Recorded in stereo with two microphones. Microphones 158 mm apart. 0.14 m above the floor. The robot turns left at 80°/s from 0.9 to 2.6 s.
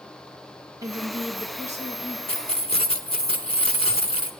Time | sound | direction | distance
0.8 | a woman speaking | 30° right | 2.5 m
2.3 | keys jangling | 35° left (ahead or behind) | 1.0 m